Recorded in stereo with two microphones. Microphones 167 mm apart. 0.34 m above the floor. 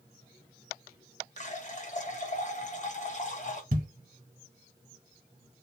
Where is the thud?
55° right (ahead or behind), 0.7 m.